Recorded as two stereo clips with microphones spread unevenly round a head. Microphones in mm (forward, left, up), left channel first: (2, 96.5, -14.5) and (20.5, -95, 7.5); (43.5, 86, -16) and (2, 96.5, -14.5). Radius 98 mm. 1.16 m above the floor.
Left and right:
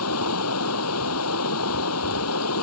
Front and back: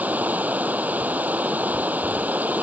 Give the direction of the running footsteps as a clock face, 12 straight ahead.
I don't hear running footsteps.